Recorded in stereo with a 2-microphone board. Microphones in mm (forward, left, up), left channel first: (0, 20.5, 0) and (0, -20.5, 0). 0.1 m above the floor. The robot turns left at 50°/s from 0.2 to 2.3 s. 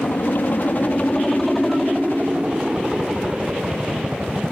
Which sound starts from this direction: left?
A helicopter, at 0.0 s.